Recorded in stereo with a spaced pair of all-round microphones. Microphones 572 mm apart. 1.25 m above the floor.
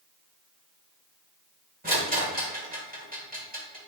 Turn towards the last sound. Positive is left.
turn(degrees=-15)  # may be behind; listen again after turning